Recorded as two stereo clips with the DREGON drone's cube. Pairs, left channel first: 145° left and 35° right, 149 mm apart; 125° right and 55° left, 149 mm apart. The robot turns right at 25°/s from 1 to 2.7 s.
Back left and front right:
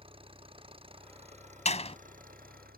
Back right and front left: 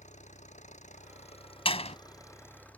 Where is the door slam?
175° right; by 2.0 s 165° right.